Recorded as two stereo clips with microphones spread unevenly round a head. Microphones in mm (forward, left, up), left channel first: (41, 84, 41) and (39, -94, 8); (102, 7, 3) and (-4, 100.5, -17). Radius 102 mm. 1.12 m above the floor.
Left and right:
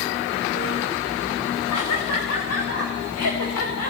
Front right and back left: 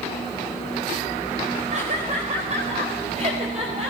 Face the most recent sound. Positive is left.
turn(degrees=95)